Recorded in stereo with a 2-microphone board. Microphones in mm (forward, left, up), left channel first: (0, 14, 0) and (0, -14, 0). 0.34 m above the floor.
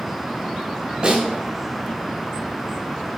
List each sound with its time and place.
1.0 s a snare drum: 35° right (ahead or behind), 2.5 m